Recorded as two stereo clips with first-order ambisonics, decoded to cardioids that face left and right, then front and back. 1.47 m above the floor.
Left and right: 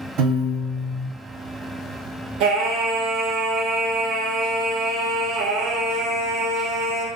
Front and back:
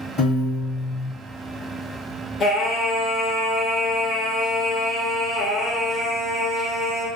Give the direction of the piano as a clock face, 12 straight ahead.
2 o'clock.